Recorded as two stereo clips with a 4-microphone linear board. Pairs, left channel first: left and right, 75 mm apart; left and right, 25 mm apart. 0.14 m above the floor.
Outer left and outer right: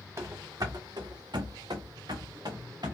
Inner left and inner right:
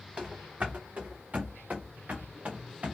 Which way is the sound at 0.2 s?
40° right (ahead or behind).